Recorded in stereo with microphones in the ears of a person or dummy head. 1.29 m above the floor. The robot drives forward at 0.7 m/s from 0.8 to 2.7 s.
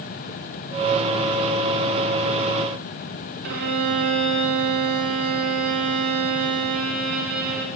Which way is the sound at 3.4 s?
50° right (ahead or behind).